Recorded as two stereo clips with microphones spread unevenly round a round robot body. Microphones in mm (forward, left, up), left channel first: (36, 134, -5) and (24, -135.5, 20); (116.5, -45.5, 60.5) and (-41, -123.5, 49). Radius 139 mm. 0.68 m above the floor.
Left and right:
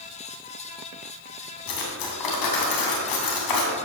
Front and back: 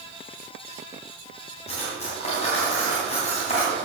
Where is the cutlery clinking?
90° left, 3 m.